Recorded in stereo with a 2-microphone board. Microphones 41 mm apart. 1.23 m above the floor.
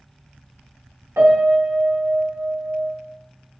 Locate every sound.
1.2 s a piano: 75° right (ahead or behind), 0.8 m